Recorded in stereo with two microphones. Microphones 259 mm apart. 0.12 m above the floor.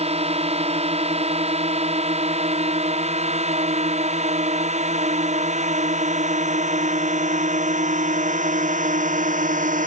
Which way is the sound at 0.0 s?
25° right (ahead or behind).